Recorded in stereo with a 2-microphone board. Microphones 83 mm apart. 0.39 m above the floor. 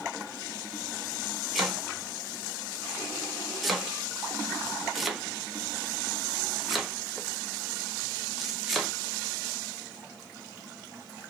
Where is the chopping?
Centre (ahead or behind), 1.4 m.